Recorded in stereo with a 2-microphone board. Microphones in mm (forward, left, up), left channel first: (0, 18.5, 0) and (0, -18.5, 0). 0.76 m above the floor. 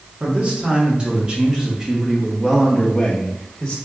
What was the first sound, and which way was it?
A man speaking, 35° right (ahead or behind).